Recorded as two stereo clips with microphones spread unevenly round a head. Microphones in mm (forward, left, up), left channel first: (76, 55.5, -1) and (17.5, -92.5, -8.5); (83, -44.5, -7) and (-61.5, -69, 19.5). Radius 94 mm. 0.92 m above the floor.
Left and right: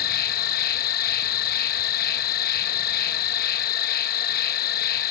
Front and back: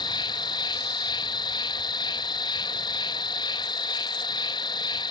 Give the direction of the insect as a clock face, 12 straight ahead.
10 o'clock.